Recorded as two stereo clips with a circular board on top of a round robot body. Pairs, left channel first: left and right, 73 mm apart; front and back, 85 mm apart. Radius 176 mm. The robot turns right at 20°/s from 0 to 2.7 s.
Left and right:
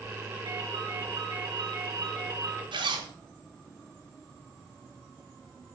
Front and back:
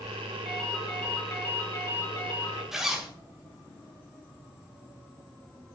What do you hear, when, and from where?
0.5 s a ringtone: 90° right, 4 m; by 2.6 s 45° right, 4 m
2.7 s a zipper: 95° right, 1.7 m